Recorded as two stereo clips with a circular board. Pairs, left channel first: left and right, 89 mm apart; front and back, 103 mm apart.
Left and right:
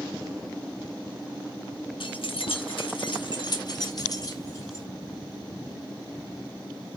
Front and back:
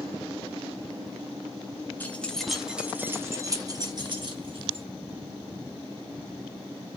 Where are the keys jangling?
75° left, 0.9 m; by 4.8 s 145° left, 1.5 m.